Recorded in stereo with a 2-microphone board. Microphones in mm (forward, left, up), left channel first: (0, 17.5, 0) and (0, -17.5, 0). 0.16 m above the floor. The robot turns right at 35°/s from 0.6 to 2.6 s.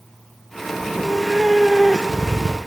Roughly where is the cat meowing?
Ahead right.